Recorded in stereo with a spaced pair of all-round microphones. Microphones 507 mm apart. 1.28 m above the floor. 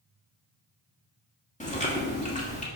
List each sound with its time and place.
1.6 s chewing: 15° left (ahead or behind), 1.7 m